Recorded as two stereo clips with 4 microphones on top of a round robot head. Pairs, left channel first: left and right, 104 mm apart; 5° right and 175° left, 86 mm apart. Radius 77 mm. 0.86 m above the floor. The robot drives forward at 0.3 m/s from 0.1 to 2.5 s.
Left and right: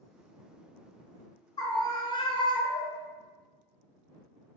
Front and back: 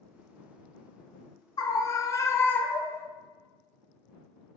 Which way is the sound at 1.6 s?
35° left.